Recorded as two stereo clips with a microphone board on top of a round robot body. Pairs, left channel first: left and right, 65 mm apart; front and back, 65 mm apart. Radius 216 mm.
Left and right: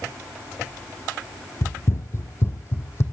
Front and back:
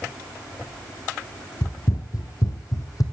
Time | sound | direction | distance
1.6 | running footsteps | 35° left | 1.2 m